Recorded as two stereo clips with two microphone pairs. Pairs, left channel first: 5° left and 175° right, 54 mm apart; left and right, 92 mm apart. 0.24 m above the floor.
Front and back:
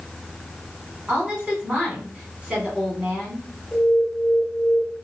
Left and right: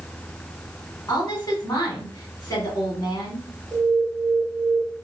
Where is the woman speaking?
125° left, 1.8 m.